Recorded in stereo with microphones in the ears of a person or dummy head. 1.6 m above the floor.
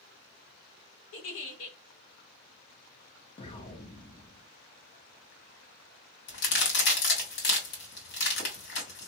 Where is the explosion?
25° left (ahead or behind), 0.7 m.